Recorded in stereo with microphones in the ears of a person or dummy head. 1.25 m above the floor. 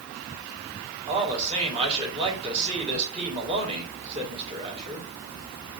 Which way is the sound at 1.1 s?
30° right (ahead or behind).